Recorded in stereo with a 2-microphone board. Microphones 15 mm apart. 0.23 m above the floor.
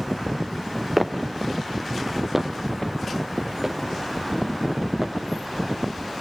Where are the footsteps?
10° right (ahead or behind), 1.3 m; by 5.2 s 25° right (ahead or behind), 3.5 m.